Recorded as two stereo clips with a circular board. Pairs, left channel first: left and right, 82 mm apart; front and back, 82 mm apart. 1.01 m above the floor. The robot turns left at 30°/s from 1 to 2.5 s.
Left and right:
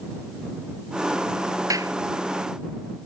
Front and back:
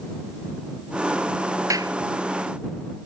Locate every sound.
1.7 s a clap: 135° right; by 1.9 s 140° right